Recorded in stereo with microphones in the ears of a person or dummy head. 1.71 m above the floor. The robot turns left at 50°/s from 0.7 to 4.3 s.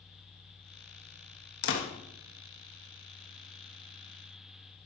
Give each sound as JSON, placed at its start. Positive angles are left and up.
{"t": 1.6, "sound": "a door slam", "side_deg": 60, "distance_m": 1.6}